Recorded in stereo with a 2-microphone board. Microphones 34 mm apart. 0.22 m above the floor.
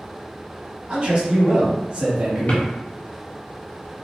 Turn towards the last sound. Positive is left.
turn(degrees=45)  # may be behind; listen again after turning